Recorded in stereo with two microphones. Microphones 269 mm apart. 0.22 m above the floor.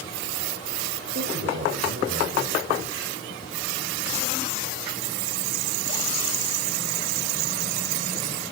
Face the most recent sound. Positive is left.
turn(degrees=-50)  # may be behind; listen again after turning